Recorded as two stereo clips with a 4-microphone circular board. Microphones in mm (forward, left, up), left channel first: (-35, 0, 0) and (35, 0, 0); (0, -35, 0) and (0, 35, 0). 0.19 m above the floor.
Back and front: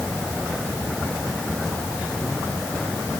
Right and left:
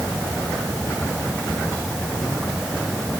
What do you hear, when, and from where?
Only background noise.